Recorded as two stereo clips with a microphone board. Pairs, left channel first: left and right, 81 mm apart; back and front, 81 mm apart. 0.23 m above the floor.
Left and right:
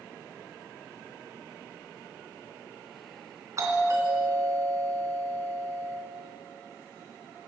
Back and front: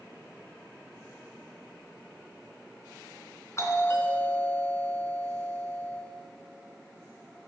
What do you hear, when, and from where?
3.6 s a doorbell: 130° right, 3 m